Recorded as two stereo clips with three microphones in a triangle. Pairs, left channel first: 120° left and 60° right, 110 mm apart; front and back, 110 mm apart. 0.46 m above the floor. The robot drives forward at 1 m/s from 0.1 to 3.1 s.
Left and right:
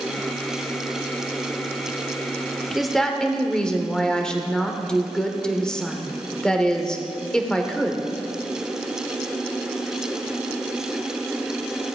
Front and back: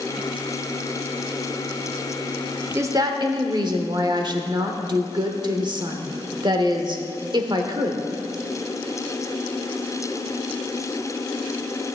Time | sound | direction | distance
2.8 | a woman speaking | 145° right | 0.8 m